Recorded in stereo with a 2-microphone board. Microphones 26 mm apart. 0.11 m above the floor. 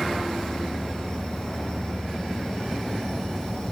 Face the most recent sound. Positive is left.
turn(degrees=30)  # may be behind; listen again after turning